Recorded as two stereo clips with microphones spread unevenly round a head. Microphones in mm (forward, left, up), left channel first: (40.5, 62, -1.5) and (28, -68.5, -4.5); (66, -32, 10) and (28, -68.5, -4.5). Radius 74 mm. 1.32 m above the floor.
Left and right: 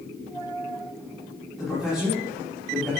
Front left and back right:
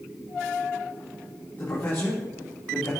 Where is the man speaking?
10° right, 3.5 m.